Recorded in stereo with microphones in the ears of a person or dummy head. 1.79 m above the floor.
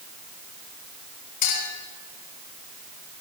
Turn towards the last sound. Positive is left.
turn(degrees=45)  # may be behind; listen again after turning